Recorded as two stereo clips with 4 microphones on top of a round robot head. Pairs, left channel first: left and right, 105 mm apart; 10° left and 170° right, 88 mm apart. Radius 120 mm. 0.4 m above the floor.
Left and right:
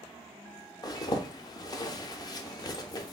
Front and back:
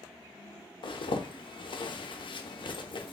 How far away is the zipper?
About 0.5 m.